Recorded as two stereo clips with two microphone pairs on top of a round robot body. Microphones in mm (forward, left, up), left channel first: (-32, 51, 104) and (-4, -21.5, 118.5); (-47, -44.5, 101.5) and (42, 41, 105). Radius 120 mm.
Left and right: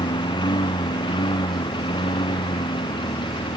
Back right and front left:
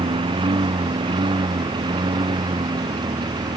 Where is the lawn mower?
95° left; by 3.6 s 100° left.